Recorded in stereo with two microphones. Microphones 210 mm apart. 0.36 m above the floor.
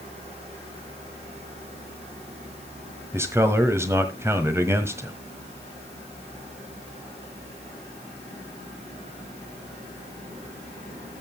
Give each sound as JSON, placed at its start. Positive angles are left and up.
{"t": 3.1, "sound": "a man speaking", "side_deg": -15, "distance_m": 1.6}